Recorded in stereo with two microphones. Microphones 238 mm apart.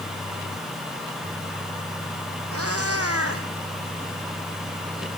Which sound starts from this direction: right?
A cat meowing, at 2.5 s.